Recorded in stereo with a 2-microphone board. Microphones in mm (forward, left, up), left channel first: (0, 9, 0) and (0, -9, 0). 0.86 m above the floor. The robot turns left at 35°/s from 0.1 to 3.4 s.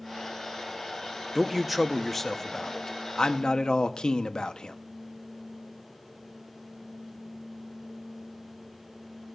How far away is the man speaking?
About 0.7 m.